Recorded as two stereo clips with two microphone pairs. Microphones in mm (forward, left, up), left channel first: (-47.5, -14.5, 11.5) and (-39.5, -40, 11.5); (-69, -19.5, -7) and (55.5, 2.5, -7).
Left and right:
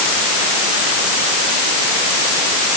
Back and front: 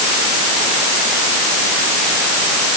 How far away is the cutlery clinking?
I don't hear cutlery clinking.